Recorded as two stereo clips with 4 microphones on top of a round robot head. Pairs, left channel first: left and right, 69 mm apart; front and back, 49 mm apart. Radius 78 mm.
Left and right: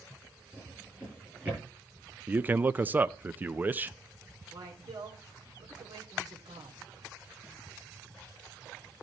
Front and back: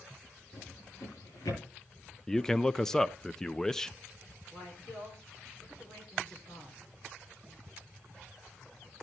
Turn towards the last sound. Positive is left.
turn(degrees=-65)